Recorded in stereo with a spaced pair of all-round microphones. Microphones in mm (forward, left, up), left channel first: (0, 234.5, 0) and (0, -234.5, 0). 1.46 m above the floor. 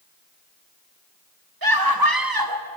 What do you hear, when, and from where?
1.6 s a scream: 50° right (ahead or behind), 2.0 m